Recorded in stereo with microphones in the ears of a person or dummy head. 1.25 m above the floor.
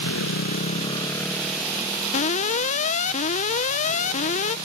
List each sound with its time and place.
0.0 s a motorcycle: 70° left (ahead or behind); by 4.7 s 35° right (ahead or behind)
2.1 s an alarm: 40° left (ahead or behind)